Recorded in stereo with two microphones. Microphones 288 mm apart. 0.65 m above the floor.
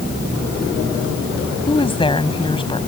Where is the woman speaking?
20° left (ahead or behind).